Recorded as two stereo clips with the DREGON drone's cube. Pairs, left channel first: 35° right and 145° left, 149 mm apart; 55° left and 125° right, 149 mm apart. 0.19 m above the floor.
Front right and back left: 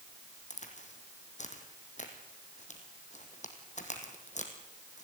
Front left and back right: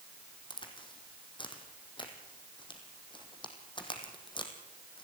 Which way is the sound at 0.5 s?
Straight ahead.